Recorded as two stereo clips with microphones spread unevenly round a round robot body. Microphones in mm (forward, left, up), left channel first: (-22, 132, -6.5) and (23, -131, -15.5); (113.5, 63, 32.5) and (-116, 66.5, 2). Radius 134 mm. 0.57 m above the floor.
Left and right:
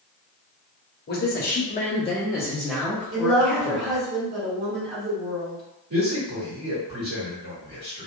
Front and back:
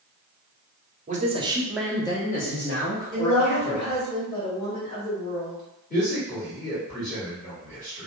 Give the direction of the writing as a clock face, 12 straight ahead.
No writing in this recording.